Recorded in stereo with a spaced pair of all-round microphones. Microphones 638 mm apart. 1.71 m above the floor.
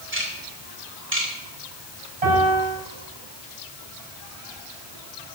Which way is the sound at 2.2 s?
60° right (ahead or behind).